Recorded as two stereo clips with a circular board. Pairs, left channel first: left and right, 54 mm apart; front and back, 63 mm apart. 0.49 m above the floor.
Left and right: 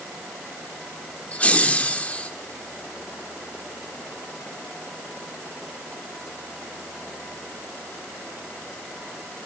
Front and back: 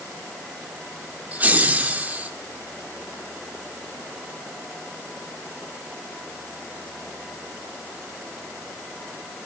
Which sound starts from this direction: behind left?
Laughter, at 1.3 s.